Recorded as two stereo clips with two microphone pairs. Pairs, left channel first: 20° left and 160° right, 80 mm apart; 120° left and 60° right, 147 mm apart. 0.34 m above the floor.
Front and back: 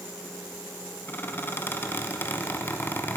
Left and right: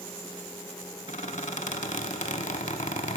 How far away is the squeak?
About 0.7 m.